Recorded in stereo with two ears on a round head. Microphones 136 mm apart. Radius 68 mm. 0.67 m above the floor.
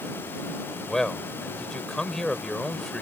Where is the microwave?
I don't hear a microwave.